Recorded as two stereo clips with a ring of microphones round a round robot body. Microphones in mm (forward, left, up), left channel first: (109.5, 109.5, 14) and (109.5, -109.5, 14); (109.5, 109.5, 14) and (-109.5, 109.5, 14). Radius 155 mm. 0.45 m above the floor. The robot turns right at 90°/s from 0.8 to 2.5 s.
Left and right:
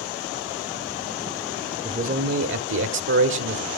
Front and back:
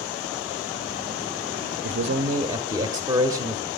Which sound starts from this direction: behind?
A man speaking, at 1.8 s.